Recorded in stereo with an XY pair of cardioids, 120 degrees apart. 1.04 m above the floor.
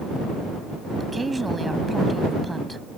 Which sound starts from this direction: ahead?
A woman speaking, at 1.0 s.